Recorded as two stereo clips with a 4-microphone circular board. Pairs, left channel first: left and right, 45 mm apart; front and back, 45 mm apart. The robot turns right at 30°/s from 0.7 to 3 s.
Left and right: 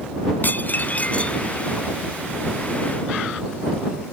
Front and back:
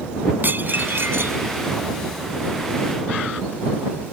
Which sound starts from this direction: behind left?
Dishes clattering, at 0.4 s.